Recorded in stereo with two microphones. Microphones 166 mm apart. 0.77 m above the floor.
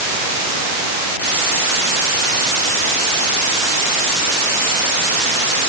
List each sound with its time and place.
Only background noise.